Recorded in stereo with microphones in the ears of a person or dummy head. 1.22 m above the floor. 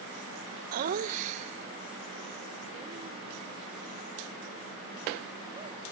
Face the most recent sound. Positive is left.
turn(degrees=-35)  # may be behind; listen again after turning